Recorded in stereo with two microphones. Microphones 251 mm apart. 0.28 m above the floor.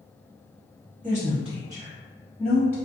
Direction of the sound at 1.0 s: 30° right (ahead or behind).